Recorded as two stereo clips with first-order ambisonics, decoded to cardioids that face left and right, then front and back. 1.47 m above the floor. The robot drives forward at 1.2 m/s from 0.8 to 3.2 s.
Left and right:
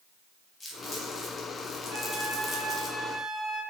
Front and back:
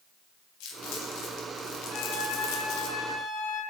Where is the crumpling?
15° left, 5.5 m; by 2.9 s 25° left, 3 m.